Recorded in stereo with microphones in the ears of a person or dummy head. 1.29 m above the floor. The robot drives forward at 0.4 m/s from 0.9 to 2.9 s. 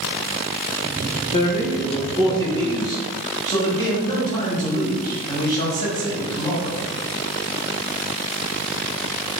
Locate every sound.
1.3 s a man speaking: 30° left (ahead or behind), 0.5 m; by 6.8 s 15° left (ahead or behind), 1.1 m